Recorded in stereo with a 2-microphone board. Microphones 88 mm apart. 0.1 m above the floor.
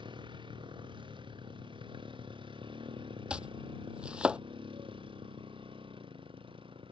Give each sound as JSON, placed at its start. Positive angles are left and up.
{"t": 0.0, "sound": "a motorcycle", "side_deg": -65}
{"t": 3.3, "sound": "chopping", "side_deg": -10}